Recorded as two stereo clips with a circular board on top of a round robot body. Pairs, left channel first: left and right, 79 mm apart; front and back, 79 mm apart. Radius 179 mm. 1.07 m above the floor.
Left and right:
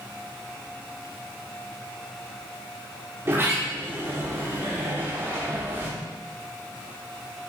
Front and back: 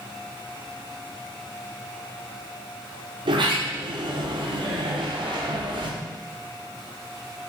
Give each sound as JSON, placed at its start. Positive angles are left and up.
{"t": 3.2, "sound": "a sliding door", "azimuth_deg": -155, "distance_m": 1.3}